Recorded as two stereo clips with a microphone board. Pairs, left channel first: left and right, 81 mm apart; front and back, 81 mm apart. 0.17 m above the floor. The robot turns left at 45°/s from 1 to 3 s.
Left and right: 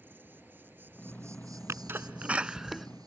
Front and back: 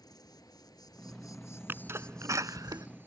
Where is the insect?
30° right; by 3.1 s 120° right.